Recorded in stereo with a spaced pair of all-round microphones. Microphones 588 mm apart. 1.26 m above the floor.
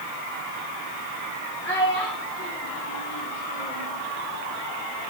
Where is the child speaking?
5° left (ahead or behind), 3 m; by 3.9 s 25° left (ahead or behind), 3 m.